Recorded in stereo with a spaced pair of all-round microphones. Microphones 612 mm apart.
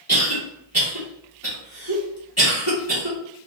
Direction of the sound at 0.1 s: 25° right (ahead or behind).